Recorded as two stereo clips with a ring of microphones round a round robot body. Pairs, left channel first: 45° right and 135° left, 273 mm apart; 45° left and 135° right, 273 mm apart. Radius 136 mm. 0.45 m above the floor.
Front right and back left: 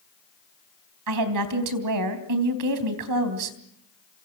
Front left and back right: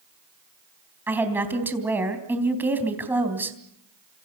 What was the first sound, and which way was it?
A woman speaking, 140° left.